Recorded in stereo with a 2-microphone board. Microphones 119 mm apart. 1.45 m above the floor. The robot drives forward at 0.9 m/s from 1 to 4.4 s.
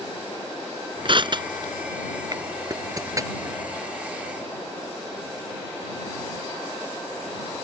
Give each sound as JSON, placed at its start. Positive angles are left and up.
{"t": 1.1, "sound": "crushing", "side_deg": -45}